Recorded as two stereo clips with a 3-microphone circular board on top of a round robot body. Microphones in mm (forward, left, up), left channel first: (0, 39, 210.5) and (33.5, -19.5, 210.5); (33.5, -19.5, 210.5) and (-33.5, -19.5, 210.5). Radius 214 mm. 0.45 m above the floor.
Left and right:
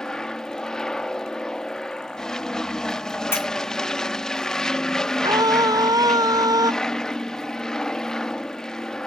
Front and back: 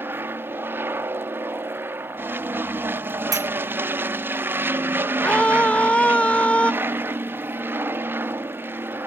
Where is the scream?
70° right.